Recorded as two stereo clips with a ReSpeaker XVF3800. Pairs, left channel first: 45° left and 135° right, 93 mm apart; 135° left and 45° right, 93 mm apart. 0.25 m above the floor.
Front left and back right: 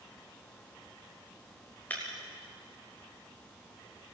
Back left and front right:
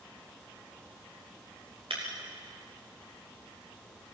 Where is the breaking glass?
30° right, 7 m.